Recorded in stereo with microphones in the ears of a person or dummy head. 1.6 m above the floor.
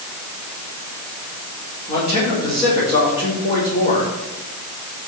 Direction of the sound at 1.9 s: 25° left (ahead or behind).